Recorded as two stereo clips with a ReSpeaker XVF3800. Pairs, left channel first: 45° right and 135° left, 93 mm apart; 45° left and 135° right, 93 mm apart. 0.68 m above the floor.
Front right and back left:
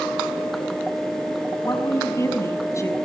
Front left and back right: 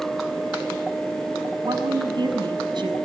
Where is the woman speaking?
100° right, 5 m.